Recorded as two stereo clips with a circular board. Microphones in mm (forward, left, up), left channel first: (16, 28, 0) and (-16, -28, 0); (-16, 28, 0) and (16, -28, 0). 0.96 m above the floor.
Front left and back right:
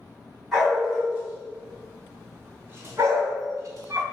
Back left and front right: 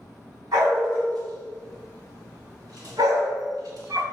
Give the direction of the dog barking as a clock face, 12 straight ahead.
1 o'clock.